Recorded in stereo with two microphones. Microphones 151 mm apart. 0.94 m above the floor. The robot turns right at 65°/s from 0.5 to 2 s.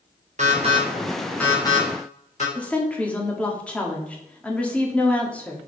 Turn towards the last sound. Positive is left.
turn(degrees=10)  # may be behind; listen again after turning